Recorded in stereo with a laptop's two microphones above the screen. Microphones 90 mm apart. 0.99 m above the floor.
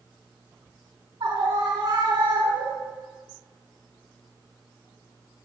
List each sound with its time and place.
1.2 s a scream: 70° right (ahead or behind), 3 m